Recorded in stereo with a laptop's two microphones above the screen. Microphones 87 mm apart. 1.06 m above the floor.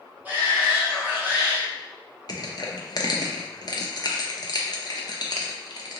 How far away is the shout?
About 0.6 m.